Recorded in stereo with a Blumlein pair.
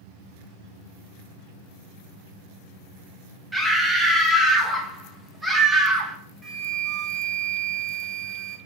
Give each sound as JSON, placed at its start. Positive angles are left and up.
{"t": 3.5, "sound": "a scream", "azimuth_deg": -5, "distance_m": 0.5}
{"t": 6.4, "sound": "a flute", "azimuth_deg": -15, "distance_m": 0.7}